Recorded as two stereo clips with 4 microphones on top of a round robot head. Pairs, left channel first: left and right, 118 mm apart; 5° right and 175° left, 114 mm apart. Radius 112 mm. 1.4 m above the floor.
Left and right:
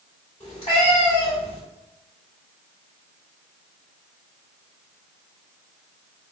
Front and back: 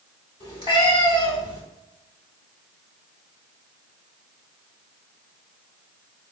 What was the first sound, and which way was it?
A cat meowing, 30° left.